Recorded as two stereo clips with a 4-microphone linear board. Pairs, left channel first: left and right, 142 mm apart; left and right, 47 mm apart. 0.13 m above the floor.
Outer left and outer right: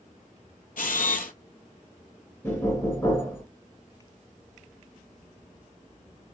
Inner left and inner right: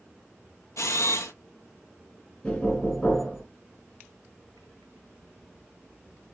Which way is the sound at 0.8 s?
80° left.